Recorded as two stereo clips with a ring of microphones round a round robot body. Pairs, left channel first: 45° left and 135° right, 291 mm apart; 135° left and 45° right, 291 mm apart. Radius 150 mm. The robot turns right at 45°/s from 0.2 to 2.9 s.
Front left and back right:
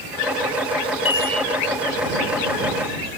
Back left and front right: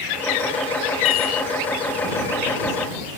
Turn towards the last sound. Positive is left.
turn(degrees=-160)